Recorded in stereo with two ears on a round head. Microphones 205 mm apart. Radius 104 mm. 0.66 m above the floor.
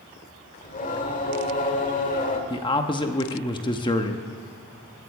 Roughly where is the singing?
Left.